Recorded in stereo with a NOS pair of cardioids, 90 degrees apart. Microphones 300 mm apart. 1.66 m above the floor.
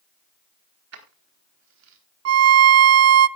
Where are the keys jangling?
55° right, 3.5 m; by 2.0 s 65° right, 3.5 m.